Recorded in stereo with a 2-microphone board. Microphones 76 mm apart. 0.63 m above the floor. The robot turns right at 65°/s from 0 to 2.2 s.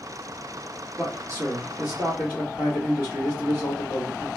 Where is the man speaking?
140° right, 1.3 m; by 4.3 s 60° right, 1.3 m.